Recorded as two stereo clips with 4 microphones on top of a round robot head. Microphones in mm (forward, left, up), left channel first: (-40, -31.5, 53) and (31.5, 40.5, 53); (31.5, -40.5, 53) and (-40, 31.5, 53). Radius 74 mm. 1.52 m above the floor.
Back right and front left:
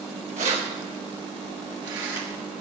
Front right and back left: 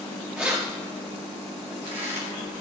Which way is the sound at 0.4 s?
55° left.